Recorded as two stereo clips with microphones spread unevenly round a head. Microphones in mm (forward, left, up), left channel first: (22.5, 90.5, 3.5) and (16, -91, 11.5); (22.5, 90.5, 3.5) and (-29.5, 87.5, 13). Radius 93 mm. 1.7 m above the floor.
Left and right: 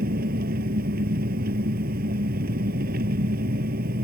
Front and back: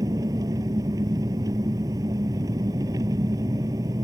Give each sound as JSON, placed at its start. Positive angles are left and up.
{"t": 0.0, "sound": "an engine running", "azimuth_deg": -140}